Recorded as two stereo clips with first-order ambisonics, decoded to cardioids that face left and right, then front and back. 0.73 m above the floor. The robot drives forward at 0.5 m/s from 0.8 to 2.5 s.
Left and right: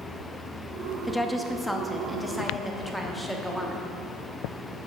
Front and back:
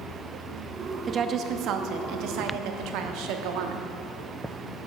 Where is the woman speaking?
165° left, 0.6 m; by 3.9 s 175° left, 1.1 m.